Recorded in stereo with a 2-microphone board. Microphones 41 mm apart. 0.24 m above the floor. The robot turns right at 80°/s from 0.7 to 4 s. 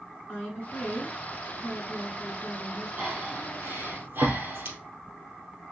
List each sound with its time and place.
0.3 s a woman speaking: 40° left, 3 m; by 2.9 s 145° right, 3 m
3.0 s breathing: 35° right (ahead or behind), 2.5 m; by 4.8 s 60° right (ahead or behind), 2.5 m